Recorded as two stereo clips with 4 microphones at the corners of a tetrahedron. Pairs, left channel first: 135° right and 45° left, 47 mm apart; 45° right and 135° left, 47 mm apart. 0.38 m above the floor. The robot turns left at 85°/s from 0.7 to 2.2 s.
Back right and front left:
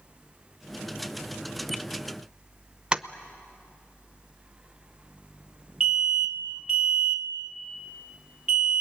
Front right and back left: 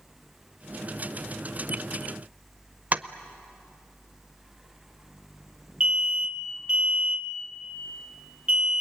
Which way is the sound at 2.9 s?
110° left.